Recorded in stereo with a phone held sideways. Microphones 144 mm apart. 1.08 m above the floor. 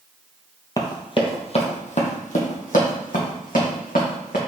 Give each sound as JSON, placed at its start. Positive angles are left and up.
{"t": 0.8, "sound": "running footsteps", "side_deg": 25, "distance_m": 1.2}